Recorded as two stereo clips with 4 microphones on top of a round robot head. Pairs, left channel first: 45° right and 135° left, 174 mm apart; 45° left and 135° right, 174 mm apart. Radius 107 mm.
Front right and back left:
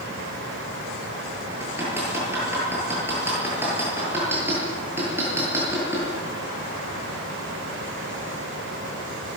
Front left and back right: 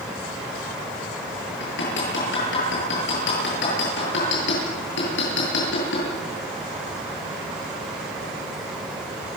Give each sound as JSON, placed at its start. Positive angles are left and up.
{"t": 1.6, "sound": "hammering", "azimuth_deg": 55, "distance_m": 9.0}